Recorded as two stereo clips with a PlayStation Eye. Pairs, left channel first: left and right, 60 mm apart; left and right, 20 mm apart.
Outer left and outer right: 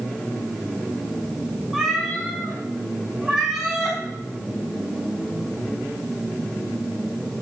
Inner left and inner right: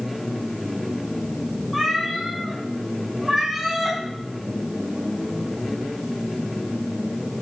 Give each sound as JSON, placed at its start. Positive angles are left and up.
{"t": 1.7, "sound": "a cat meowing", "side_deg": -15, "distance_m": 4.5}